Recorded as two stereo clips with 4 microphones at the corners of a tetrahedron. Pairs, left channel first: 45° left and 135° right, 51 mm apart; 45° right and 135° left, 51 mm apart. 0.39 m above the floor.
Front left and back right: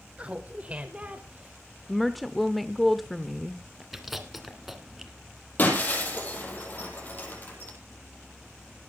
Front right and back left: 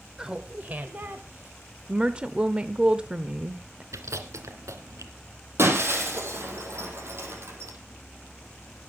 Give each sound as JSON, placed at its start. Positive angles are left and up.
{"t": 0.2, "sound": "laughter", "azimuth_deg": -160, "distance_m": 1.0}
{"t": 1.9, "sound": "a woman speaking", "azimuth_deg": 135, "distance_m": 0.8}
{"t": 3.9, "sound": "chewing", "azimuth_deg": 140, "distance_m": 2.0}
{"t": 5.6, "sound": "breaking glass", "azimuth_deg": 100, "distance_m": 5.5}